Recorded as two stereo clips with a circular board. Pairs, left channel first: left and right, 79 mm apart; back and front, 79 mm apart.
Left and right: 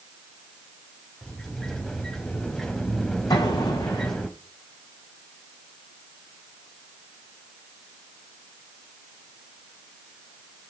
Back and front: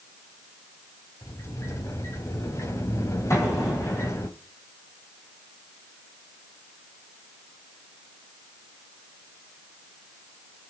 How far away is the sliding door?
About 1.8 m.